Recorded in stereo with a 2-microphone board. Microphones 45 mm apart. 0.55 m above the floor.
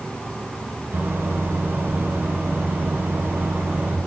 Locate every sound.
0.9 s a microwave: 50° right (ahead or behind), 4.5 m